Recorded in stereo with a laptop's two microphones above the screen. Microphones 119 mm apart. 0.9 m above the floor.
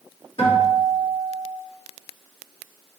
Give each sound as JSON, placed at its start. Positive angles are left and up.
{"t": 0.4, "sound": "a guitar", "side_deg": 50, "distance_m": 2.5}